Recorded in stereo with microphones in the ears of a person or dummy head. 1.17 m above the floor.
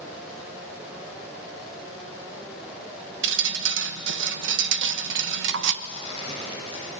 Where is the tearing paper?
30° right (ahead or behind), 7 m.